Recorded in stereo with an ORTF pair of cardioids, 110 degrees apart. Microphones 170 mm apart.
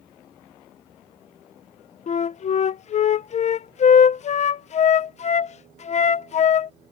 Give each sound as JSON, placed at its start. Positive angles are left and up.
{"t": 2.1, "sound": "a flute", "azimuth_deg": 45}